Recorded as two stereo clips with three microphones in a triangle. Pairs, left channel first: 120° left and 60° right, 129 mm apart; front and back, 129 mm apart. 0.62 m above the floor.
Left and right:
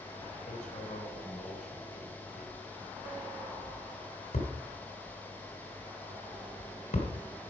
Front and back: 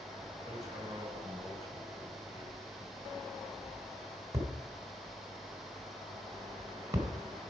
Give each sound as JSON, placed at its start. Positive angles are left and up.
{"t": 0.5, "sound": "hammering", "azimuth_deg": 115, "distance_m": 2.5}